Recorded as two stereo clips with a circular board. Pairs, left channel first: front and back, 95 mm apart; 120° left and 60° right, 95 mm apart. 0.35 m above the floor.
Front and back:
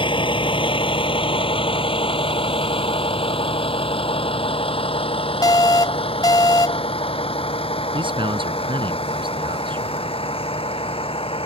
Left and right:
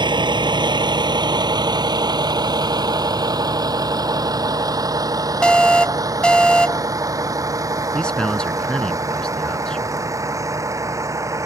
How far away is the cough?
No cough in this recording.